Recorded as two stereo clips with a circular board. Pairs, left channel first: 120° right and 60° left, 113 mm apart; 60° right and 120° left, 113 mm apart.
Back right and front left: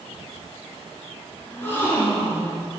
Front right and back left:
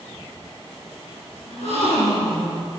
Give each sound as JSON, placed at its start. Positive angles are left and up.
{"t": 1.5, "sound": "a gasp", "azimuth_deg": -45, "distance_m": 4.5}